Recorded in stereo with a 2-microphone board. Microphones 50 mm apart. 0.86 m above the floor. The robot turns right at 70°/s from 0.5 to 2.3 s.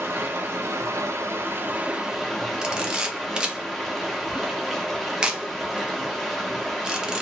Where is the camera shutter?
20° right (ahead or behind), 0.6 m.